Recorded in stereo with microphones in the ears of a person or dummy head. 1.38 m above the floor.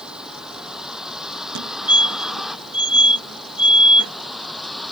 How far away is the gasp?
No gasp in this recording.